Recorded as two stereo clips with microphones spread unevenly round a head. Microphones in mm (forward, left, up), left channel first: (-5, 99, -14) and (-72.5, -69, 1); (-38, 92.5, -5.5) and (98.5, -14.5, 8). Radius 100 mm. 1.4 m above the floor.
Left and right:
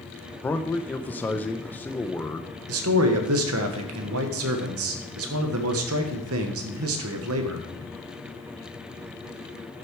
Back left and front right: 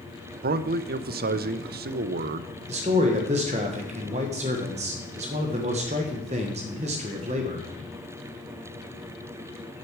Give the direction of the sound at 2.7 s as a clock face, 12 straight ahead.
3 o'clock.